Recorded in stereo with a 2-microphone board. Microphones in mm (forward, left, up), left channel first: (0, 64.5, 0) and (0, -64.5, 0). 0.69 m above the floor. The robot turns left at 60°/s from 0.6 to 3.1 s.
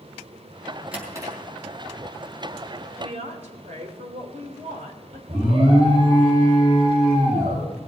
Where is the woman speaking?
55° right (ahead or behind), 3 m; by 5.2 s 60° right (ahead or behind), 3 m.